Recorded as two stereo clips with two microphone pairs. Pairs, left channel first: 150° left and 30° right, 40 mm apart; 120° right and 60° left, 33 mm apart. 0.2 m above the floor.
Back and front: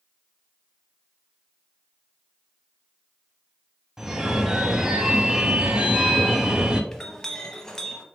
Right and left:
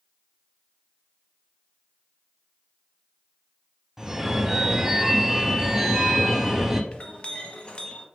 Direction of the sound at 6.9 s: 140° right.